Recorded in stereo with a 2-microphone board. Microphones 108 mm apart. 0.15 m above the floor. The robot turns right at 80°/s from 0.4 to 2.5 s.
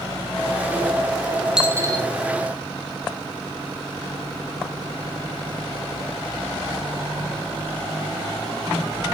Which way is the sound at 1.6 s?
5° right (ahead or behind).